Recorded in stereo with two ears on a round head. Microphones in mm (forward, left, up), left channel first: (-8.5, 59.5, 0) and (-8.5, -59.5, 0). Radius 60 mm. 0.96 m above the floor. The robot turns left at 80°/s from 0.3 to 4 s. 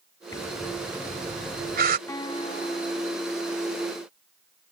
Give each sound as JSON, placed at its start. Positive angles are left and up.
{"t": 0.3, "sound": "breathing", "side_deg": 25}
{"t": 2.1, "sound": "a guitar", "azimuth_deg": 160}